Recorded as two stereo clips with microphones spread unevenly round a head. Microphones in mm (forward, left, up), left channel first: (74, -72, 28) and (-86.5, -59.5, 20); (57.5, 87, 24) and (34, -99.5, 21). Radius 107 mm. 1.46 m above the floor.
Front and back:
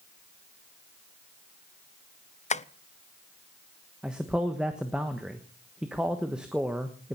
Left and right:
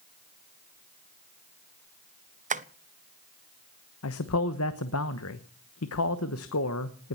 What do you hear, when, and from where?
2.5 s tapping: 50° right, 0.8 m
4.0 s a man speaking: 90° left, 1.1 m